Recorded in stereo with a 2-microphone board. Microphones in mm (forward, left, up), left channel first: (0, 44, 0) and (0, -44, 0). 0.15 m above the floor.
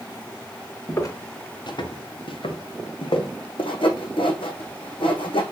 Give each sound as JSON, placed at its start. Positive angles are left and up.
{"t": 0.9, "sound": "footsteps", "side_deg": 35, "distance_m": 2.5}
{"t": 3.6, "sound": "sawing", "side_deg": 80, "distance_m": 2.0}